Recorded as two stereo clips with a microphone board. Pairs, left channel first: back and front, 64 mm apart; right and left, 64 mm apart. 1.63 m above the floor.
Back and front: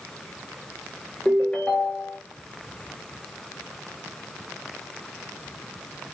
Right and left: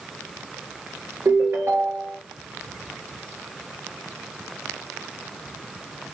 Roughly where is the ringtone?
Behind left.